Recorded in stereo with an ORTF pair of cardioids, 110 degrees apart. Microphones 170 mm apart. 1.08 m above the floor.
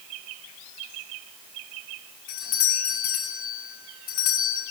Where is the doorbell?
70° left, 6 m.